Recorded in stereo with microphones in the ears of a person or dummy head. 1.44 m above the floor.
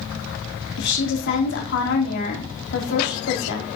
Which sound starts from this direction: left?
A woman speaking, at 0.8 s.